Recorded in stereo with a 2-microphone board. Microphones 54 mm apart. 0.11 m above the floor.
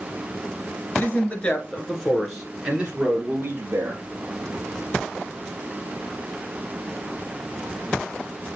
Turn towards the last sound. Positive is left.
turn(degrees=-45)  # may be behind; listen again after turning